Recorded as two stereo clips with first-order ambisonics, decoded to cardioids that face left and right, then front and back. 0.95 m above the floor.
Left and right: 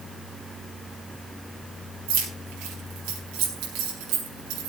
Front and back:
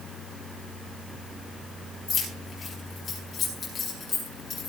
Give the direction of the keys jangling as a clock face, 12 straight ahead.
2 o'clock.